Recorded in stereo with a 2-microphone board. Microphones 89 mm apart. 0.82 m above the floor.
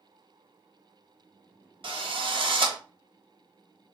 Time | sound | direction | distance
1.8 | a drill | 70° right (ahead or behind) | 1.6 m